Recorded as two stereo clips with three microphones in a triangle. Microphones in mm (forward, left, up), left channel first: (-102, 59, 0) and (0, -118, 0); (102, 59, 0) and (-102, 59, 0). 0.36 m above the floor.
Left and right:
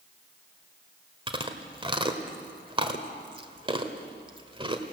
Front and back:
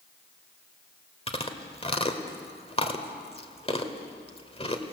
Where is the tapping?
I don't hear tapping.